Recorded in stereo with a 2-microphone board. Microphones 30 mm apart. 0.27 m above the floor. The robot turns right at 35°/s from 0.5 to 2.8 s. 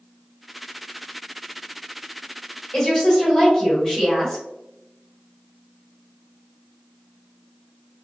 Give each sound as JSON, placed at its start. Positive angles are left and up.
{"t": 2.7, "sound": "a woman speaking", "side_deg": 15, "distance_m": 1.4}